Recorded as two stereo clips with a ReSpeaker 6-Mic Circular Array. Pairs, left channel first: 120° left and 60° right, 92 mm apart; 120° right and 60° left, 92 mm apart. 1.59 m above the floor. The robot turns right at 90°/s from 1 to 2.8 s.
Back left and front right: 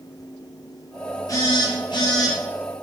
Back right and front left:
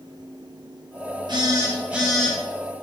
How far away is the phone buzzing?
About 0.8 m.